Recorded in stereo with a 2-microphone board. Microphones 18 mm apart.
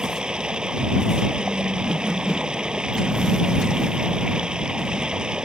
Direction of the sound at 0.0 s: 60° right (ahead or behind).